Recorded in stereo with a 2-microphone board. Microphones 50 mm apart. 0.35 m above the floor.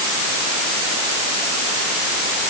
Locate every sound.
Only background noise.